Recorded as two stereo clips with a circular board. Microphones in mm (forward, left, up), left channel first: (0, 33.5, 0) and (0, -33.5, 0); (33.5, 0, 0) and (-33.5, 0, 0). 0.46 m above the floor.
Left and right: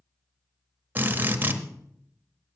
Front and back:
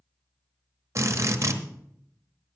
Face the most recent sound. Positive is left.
turn(degrees=-150)